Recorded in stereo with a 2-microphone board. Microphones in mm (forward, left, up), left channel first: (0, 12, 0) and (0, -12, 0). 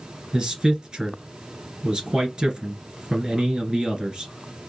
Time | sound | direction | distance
0.3 | a man speaking | 35° right (ahead or behind) | 1.9 m